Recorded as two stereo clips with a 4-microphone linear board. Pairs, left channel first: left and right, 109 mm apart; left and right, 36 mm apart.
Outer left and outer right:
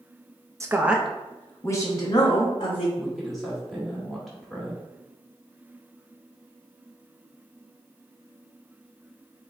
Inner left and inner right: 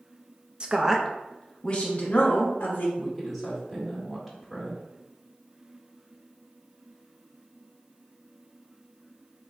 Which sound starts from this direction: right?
A woman speaking, at 0.6 s.